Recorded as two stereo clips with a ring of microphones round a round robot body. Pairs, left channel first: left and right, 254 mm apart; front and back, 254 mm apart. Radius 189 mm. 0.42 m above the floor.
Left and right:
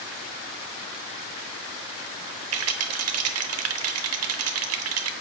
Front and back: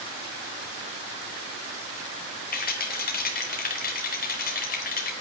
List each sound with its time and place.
2.5 s a rattle: 60° right, 1.0 m